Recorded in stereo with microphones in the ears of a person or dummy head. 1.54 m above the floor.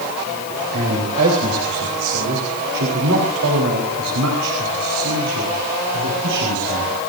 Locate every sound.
0.7 s a man speaking: 60° right (ahead or behind), 4.5 m; by 6.9 s 80° right, 5 m